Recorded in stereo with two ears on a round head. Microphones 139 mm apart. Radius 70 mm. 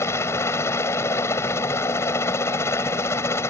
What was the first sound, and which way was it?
A helicopter, 20° left (ahead or behind).